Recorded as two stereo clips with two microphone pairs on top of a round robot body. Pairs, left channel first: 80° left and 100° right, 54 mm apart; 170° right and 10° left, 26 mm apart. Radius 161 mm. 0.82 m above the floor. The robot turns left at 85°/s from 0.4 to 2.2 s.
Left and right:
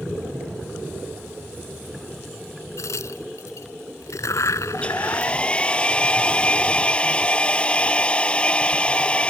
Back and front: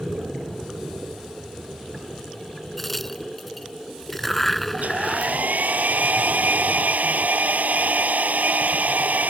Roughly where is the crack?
Left.